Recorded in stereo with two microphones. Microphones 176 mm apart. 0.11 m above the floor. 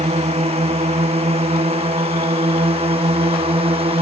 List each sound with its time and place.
0.0 s a drone: 35° right (ahead or behind)